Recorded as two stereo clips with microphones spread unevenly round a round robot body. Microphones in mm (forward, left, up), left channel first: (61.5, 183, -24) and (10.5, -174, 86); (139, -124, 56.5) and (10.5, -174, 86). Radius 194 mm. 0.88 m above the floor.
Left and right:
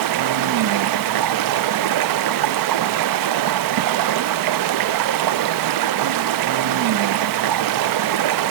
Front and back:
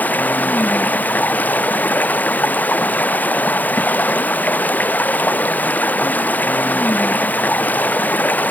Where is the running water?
55° right, 0.7 m.